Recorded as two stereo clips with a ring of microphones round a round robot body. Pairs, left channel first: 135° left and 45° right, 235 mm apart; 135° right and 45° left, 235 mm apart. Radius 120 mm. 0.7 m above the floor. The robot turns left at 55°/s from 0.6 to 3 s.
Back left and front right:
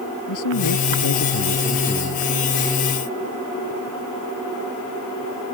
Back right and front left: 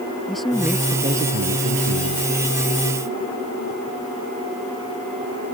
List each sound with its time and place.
0.3 s a man speaking: 135° left; by 2.5 s 35° left